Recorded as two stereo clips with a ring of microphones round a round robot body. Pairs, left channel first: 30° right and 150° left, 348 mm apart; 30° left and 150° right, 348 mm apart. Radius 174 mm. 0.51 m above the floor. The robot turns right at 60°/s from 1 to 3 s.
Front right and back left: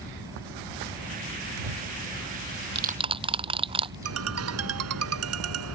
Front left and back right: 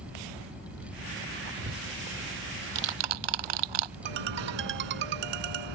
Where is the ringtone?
160° right.